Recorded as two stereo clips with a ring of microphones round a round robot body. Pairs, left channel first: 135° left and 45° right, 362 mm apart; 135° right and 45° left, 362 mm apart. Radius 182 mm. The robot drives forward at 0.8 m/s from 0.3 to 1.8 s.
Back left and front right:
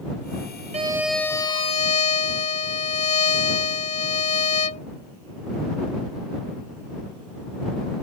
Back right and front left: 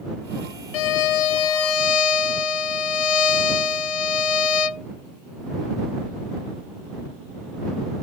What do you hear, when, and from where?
0.7 s a violin: 120° right; by 4.9 s 150° right